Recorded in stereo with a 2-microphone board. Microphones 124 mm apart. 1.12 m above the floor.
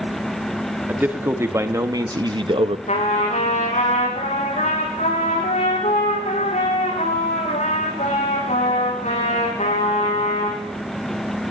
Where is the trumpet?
70° left (ahead or behind), 9 m.